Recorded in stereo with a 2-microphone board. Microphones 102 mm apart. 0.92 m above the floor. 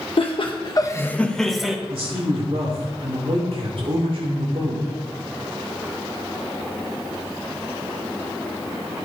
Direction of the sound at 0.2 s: 60° left (ahead or behind).